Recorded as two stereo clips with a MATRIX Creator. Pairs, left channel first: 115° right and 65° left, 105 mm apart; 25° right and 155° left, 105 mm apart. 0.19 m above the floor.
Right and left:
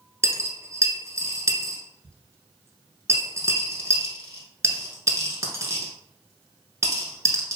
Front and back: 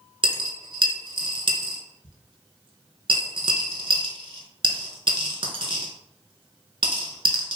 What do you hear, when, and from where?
0.2 s a dropped coin: 125° left, 0.6 m